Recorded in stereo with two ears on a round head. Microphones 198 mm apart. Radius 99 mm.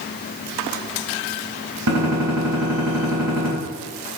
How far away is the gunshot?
About 4 m.